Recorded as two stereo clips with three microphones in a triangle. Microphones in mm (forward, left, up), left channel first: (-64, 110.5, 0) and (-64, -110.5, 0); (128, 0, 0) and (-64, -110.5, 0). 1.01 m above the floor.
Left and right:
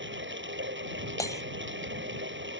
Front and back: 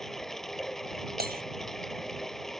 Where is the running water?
60° right.